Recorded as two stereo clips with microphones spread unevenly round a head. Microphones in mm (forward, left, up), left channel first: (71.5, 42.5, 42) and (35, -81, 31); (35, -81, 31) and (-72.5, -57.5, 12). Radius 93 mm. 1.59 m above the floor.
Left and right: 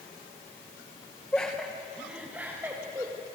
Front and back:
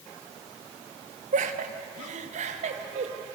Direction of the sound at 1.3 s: 155° left.